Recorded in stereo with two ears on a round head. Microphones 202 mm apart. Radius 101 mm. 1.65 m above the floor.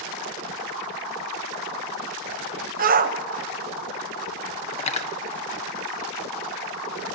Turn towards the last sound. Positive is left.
turn(degrees=30)  # may be behind; listen again after turning